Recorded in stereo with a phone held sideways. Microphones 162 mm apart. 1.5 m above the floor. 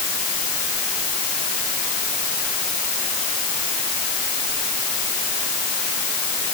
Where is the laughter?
No laughter in this recording.